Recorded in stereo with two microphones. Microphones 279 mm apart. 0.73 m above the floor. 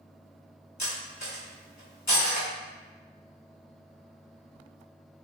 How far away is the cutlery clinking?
About 1.1 m.